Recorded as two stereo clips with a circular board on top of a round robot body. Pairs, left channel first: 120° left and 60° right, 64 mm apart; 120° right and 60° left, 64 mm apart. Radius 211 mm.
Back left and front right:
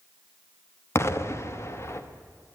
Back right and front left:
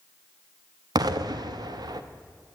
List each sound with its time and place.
0.9 s an explosion: 70° left, 0.9 m